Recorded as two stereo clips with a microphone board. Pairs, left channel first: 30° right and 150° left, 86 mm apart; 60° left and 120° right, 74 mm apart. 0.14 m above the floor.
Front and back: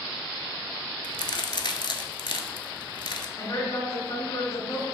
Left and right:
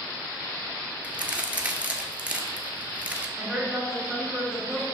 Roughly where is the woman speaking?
Ahead right.